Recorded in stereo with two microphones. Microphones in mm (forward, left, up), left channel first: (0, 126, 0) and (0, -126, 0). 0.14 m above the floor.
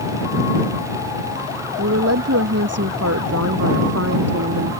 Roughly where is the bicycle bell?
I don't hear a bicycle bell.